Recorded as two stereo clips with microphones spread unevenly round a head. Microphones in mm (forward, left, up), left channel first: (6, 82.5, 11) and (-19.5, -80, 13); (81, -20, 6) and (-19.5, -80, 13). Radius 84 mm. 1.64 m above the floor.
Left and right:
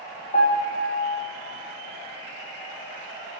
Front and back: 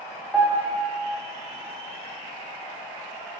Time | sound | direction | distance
0.3 | a piano | 130° left | 1.3 m